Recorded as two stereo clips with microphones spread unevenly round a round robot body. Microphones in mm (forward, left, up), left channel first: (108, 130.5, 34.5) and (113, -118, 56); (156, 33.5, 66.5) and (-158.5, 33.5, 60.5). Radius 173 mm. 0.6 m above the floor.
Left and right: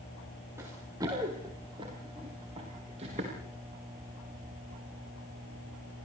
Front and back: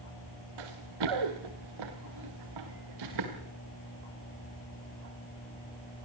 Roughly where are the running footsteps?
Behind.